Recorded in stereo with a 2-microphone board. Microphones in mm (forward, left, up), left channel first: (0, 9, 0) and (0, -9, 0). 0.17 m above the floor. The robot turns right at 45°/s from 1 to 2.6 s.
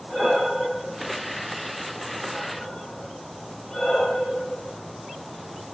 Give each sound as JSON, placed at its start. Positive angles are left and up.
{"t": 0.1, "sound": "breathing", "side_deg": -15, "distance_m": 2.0}